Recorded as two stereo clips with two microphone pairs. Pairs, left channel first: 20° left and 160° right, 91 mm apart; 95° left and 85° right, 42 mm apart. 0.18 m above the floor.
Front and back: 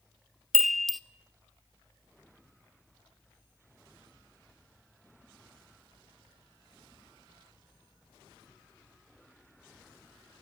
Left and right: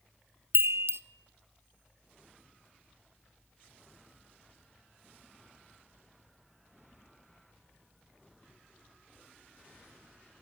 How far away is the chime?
About 0.6 m.